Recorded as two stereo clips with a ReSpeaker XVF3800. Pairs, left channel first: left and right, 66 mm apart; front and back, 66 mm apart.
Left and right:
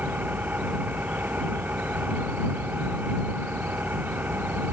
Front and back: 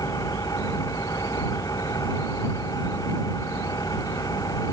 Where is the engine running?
25° right.